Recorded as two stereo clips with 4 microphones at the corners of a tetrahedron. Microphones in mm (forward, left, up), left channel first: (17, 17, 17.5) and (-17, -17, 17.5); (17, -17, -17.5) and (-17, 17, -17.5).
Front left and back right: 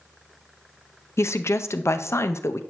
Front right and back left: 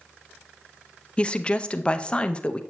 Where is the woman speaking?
20° left, 0.5 m.